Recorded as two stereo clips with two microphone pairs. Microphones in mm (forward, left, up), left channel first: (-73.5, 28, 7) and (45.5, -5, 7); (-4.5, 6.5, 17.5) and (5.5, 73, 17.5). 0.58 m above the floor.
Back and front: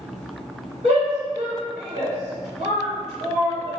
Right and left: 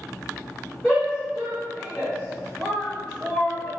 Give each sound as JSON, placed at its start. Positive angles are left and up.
{"t": 0.8, "sound": "a shout", "azimuth_deg": 0, "distance_m": 1.8}